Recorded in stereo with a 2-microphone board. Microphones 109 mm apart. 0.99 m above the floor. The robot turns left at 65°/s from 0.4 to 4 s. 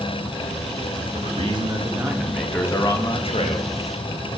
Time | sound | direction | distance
1.1 | a man speaking | 105° right | 0.9 m